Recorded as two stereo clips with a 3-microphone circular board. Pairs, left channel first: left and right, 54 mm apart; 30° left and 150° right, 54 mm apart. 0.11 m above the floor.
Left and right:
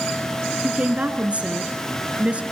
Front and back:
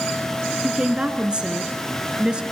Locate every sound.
0.6 s a woman speaking: 105° right, 1.6 m